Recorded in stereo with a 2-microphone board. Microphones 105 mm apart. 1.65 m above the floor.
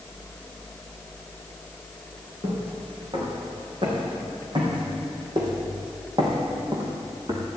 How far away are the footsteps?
About 6 m.